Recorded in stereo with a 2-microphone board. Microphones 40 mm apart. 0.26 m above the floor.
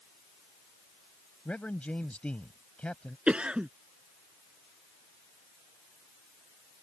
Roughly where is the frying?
I don't hear frying.